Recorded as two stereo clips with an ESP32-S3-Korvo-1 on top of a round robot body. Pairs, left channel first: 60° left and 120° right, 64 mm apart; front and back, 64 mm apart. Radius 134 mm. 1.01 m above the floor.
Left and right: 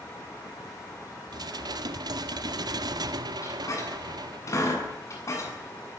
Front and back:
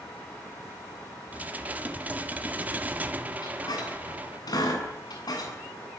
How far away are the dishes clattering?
About 1.6 m.